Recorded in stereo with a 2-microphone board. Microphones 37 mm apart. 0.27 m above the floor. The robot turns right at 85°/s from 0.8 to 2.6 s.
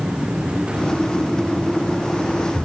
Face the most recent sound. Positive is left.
No sound to turn to.